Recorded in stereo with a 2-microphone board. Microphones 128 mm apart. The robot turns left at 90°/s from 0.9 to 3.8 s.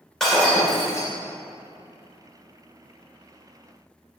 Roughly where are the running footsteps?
I don't hear running footsteps.